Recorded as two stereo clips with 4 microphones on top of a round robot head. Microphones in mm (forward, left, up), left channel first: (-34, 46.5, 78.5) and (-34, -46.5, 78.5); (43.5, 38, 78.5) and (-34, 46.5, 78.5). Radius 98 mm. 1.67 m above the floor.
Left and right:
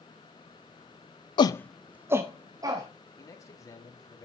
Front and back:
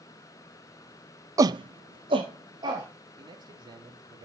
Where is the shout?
125° left, 0.5 m; by 2.9 s 140° right, 1.6 m.